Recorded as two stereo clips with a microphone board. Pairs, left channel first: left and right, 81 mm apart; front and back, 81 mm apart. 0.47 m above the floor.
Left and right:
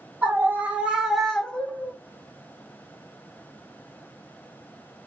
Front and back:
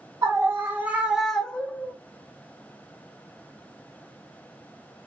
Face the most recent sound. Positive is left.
turn(degrees=45)